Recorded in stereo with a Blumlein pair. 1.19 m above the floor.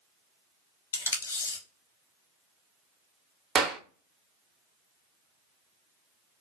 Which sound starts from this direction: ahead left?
Tape being pulled, at 0.9 s.